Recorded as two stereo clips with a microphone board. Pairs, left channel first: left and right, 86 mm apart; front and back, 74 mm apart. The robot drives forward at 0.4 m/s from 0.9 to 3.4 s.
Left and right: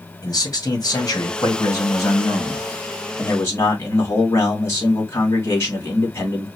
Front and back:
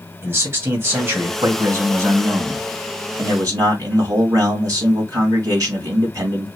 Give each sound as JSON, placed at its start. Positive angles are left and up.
{"t": 0.2, "sound": "a man speaking", "azimuth_deg": 130, "distance_m": 2.0}